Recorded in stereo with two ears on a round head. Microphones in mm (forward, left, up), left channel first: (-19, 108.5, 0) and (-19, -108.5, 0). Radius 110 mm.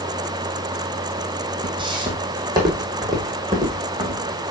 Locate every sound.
1.6 s footsteps: 20° right (ahead or behind), 1.6 m; by 4.2 s 15° right (ahead or behind), 3 m